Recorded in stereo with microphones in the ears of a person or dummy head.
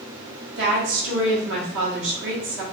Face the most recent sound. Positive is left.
turn(degrees=-65)  # may be behind; listen again after turning